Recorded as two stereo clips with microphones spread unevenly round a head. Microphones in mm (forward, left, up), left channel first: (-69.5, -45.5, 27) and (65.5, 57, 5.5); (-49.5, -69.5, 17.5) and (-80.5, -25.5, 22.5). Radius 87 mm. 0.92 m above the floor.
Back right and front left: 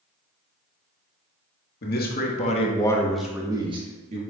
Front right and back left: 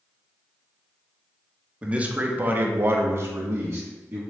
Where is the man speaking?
165° right, 1.7 m; by 4.2 s 70° left, 1.6 m.